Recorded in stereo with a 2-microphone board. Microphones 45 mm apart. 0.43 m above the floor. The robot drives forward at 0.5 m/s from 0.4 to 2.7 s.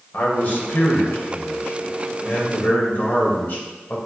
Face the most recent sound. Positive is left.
turn(degrees=50)  # may be behind; listen again after turning